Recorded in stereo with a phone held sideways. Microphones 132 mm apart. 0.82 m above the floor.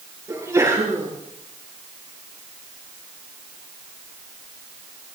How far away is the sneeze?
About 9.5 m.